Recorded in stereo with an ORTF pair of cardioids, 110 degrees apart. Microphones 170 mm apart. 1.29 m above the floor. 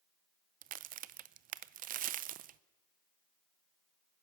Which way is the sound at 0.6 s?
55° right.